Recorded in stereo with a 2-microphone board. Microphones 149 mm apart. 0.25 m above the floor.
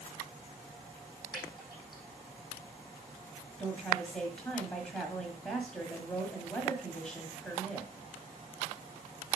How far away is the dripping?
About 4.5 m.